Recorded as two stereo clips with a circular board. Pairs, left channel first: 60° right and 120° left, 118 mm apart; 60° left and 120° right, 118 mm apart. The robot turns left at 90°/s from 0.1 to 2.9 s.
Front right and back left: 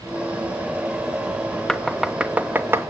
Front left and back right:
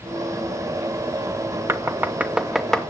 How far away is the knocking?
About 0.8 m.